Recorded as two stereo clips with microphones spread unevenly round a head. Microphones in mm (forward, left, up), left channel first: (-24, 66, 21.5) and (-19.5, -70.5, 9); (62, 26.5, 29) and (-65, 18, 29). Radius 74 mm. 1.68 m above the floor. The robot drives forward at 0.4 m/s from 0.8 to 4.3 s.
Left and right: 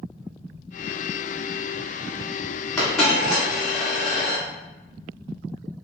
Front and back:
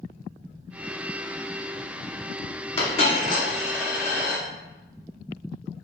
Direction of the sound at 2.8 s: 10° left.